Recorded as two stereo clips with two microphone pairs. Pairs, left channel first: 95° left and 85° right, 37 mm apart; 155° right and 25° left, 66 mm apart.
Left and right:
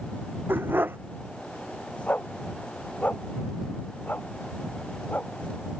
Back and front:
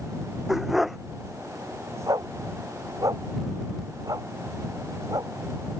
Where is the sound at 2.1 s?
55° left.